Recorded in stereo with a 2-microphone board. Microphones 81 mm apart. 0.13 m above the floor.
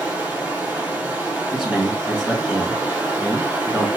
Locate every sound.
0.0 s running water: 20° right (ahead or behind), 1.1 m
1.5 s a man speaking: 5° right (ahead or behind), 1.3 m